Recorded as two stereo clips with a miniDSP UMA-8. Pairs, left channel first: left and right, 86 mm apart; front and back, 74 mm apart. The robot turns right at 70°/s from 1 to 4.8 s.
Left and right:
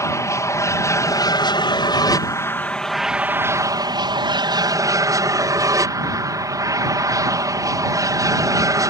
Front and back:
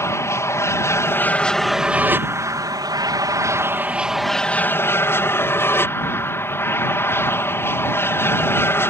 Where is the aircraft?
40° left; by 8.9 s 50° right.